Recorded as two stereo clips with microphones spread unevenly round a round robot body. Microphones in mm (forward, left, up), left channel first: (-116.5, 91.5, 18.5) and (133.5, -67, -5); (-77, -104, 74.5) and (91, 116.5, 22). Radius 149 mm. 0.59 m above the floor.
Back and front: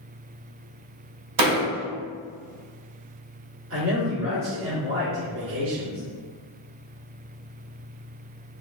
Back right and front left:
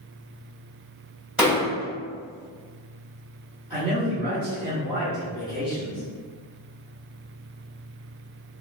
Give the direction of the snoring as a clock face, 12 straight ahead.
I don't hear snoring.